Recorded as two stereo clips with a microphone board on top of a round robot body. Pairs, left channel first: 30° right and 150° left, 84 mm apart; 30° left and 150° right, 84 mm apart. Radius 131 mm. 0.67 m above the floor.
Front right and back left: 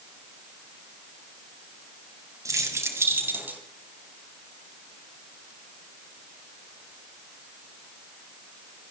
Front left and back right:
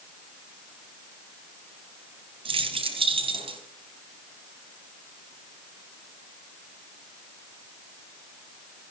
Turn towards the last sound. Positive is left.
turn(degrees=-140)